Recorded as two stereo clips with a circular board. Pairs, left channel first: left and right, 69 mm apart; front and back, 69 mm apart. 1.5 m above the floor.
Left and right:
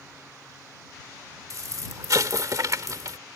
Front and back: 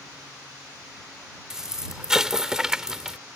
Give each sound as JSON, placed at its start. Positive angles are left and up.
{"t": 1.5, "sound": "an explosion", "azimuth_deg": -100}